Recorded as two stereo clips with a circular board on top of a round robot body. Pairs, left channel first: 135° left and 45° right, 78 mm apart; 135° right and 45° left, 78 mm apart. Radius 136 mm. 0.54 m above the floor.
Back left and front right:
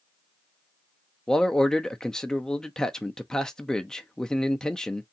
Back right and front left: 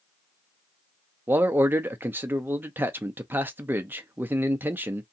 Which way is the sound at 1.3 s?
60° left.